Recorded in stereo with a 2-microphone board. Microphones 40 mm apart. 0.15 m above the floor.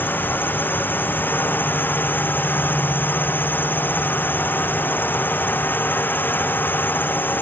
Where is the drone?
55° left (ahead or behind).